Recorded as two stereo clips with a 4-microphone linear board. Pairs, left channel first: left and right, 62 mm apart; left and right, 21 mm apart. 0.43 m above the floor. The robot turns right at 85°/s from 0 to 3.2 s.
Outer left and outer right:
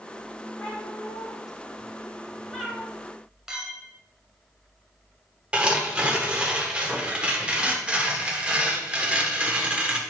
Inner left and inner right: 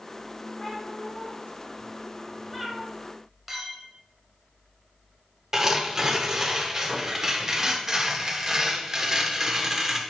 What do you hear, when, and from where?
0.6 s a cat meowing: 5° left, 2.5 m; by 2.9 s 160° right, 2.5 m
3.5 s a clink: 10° right (ahead or behind), 1.6 m
5.5 s tearing paper: 15° right (ahead or behind), 1.3 m